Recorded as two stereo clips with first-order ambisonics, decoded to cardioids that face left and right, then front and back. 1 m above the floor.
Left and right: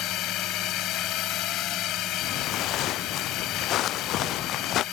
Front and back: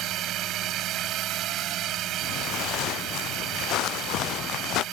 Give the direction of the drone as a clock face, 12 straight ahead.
8 o'clock.